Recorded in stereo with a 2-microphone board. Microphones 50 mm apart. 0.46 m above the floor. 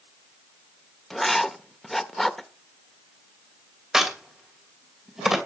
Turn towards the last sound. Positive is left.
turn(degrees=-5)  # may be behind; listen again after turning